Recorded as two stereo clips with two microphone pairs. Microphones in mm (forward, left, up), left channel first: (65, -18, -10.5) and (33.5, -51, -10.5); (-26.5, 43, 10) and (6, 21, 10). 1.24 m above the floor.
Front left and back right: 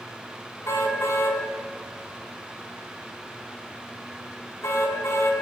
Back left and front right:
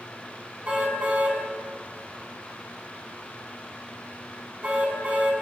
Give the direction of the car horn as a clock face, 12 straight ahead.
11 o'clock.